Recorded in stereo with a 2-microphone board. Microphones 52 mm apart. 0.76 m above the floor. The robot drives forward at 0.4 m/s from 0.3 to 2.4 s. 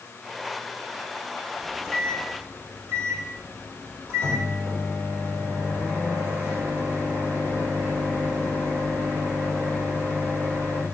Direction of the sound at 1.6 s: 50° right (ahead or behind).